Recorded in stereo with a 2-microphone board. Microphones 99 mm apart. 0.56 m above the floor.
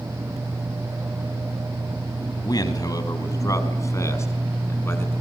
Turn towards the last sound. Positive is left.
turn(degrees=25)  # may be behind; listen again after turning